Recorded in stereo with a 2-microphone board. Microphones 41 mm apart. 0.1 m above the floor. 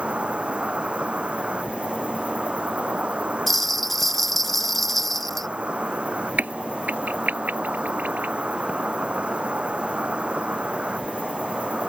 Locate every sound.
0.0 s an insect: 30° right (ahead or behind)
3.5 s a bell: 5° left (ahead or behind)
6.4 s a crack: 50° right (ahead or behind)